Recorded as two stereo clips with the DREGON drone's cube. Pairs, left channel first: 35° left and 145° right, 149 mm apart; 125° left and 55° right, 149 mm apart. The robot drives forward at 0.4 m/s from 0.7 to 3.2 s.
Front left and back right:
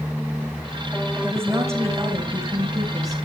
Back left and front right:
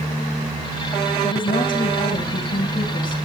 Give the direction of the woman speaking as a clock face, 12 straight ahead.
7 o'clock.